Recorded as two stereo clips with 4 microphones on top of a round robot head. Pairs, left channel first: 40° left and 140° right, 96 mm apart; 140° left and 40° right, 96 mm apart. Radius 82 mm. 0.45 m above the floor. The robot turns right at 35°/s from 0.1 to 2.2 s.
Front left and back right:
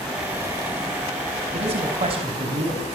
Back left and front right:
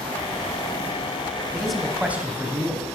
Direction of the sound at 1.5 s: 135° right.